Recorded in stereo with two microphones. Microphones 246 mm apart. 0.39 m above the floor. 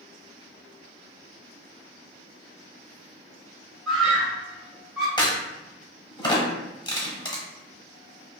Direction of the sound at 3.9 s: Centre (ahead or behind).